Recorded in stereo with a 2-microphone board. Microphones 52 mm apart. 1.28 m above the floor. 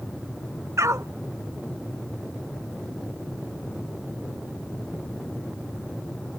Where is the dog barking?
75° right (ahead or behind).